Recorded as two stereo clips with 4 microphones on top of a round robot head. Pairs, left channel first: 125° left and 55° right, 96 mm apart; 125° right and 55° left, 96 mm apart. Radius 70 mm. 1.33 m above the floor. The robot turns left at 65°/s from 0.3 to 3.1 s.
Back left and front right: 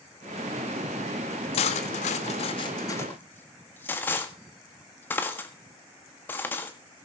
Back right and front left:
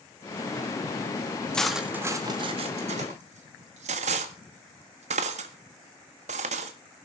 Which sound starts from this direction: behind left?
Cutlery clinking, at 1.5 s.